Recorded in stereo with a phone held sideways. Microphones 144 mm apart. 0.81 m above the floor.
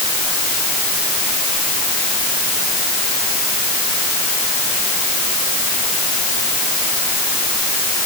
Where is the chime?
No chime in this recording.